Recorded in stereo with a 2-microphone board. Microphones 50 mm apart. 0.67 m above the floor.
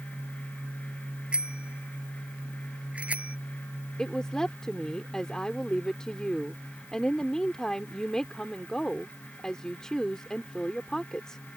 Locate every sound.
1.3 s a bicycle bell: 20° right (ahead or behind); by 3.4 s 30° right (ahead or behind)
4.0 s a woman speaking: 15° left (ahead or behind)